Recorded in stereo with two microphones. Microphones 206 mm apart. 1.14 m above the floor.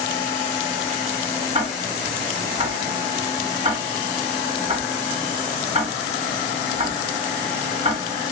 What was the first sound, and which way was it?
Ticking, 30° right (ahead or behind).